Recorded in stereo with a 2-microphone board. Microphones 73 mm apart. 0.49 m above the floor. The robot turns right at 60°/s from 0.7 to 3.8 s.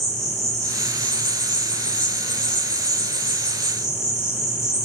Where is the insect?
Straight ahead, 0.8 m; by 4.8 s 175° right, 0.8 m.